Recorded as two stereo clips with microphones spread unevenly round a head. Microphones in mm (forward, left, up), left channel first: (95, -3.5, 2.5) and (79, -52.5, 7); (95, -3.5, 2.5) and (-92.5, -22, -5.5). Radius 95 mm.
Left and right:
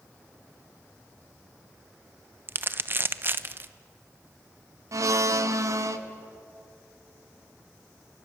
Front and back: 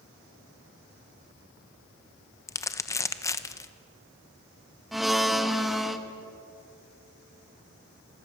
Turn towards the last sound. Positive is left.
turn(degrees=-85)